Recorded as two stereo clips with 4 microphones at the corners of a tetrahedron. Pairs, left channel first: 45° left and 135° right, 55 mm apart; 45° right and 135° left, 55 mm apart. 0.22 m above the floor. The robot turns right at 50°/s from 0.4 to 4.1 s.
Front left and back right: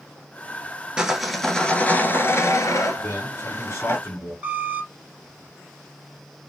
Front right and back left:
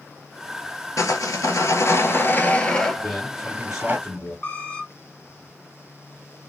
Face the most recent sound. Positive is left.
turn(degrees=-95)